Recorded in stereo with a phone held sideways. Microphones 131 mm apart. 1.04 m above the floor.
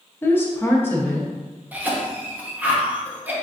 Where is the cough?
15° right (ahead or behind), 0.9 m.